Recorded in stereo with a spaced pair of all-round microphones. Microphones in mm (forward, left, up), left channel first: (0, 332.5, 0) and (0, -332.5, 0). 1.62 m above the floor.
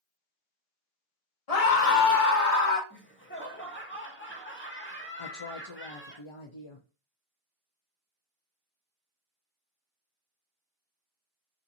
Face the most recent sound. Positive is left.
turn(degrees=50)  # may be behind; listen again after turning